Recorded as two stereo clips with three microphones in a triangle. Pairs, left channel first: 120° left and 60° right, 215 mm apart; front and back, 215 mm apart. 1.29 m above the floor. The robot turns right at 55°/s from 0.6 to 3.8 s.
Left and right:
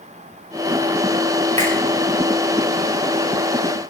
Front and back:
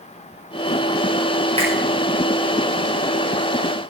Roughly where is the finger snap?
Behind right.